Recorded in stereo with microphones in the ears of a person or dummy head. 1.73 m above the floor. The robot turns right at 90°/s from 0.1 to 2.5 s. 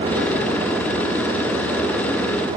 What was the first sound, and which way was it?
Only background noise.